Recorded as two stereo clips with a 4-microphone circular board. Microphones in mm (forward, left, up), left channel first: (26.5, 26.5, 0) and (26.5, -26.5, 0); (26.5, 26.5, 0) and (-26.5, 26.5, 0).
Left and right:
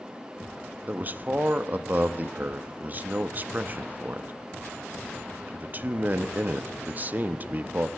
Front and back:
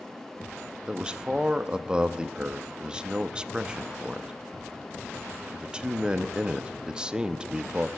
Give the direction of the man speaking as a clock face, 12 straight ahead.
4 o'clock.